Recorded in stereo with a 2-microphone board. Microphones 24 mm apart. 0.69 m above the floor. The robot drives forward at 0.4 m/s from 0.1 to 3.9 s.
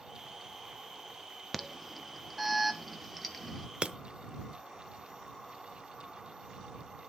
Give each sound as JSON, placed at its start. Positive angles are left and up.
{"t": 1.5, "sound": "an alarm", "side_deg": -5, "distance_m": 0.8}
{"t": 3.8, "sound": "breaking glass", "side_deg": -55, "distance_m": 0.8}